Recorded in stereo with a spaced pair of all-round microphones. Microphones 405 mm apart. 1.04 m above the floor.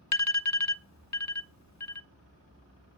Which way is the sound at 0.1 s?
45° left (ahead or behind).